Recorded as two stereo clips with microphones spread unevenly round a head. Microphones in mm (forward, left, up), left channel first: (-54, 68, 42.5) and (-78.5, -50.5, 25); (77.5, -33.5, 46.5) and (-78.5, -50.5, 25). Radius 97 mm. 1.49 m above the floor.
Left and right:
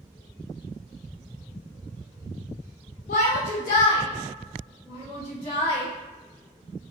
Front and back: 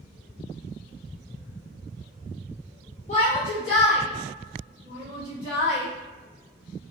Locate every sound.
3.1 s a shout: 60° left, 0.7 m; by 5.9 s 65° left, 3 m